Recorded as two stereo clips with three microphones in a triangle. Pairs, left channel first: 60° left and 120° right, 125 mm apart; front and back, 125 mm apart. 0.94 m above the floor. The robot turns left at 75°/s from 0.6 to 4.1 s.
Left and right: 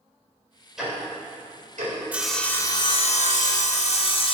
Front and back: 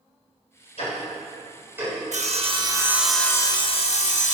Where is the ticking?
30° right, 4 m; by 1.9 s 120° right, 4 m.